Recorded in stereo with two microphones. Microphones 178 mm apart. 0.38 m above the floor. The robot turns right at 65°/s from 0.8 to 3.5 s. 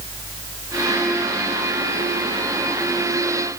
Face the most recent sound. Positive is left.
No sound to turn to.